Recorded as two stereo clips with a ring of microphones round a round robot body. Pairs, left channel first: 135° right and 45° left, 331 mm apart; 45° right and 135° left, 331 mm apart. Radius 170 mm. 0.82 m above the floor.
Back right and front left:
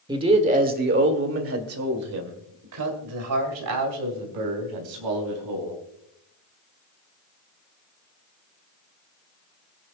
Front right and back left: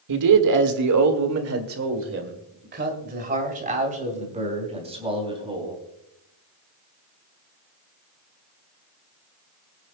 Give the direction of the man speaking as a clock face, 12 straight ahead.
8 o'clock.